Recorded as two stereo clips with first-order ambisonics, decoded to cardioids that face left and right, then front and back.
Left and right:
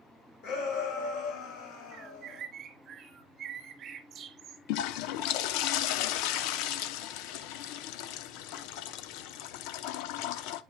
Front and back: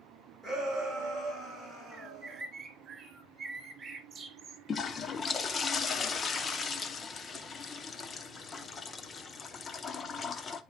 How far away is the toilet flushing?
About 0.5 m.